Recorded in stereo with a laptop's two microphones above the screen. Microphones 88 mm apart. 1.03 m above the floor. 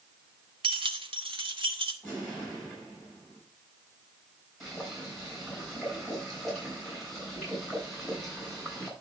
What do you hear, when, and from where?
0.6 s keys jangling: 85° right, 1.1 m; by 1.9 s 75° right (ahead or behind), 1.6 m
2.0 s an explosion: 10° left (ahead or behind), 6.5 m
4.6 s boiling: centre (ahead or behind), 6 m